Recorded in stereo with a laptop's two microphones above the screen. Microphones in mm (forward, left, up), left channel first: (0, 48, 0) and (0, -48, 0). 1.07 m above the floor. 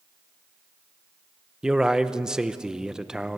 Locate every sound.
1.6 s a man speaking: 10° right (ahead or behind), 0.6 m